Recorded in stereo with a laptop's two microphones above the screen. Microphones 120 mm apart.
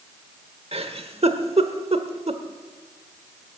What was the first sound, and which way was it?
A giggle, 55° right (ahead or behind).